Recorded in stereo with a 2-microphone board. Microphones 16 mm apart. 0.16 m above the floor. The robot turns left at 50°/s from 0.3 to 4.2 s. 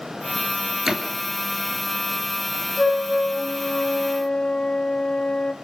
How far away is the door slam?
About 2.5 m.